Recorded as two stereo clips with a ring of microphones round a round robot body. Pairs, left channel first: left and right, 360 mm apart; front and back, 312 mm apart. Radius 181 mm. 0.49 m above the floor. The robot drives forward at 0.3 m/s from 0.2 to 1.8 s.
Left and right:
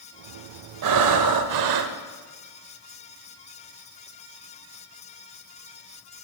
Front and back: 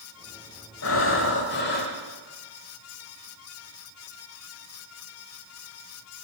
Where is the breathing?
55° right, 1.4 m; by 1.9 s 65° right, 1.3 m.